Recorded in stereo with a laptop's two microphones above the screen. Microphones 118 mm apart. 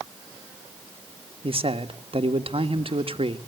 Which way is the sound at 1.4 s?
50° right (ahead or behind).